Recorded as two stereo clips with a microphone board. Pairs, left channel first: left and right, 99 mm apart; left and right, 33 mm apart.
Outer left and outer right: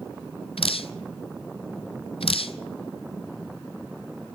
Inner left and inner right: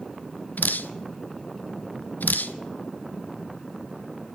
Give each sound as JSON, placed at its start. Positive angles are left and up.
{"t": 0.6, "sound": "dripping", "side_deg": 70, "distance_m": 0.6}